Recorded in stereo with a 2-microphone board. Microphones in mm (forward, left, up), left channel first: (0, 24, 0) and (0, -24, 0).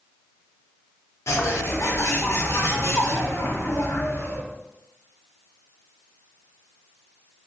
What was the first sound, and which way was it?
A bird, 80° left.